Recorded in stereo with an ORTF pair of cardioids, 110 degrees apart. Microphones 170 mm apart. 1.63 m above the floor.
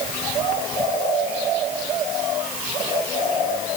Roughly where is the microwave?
No microwave in this recording.